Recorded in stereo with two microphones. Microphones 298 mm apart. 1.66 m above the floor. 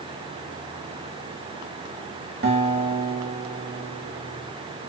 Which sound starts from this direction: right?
A guitar, at 2.4 s.